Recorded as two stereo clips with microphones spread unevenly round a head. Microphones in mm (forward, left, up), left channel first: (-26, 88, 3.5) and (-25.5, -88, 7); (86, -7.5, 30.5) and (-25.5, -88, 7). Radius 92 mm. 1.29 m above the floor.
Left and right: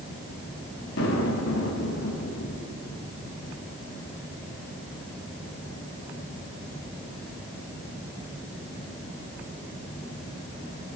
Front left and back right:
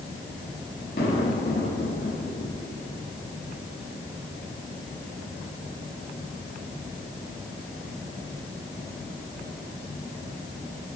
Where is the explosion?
80° left, 5.5 m.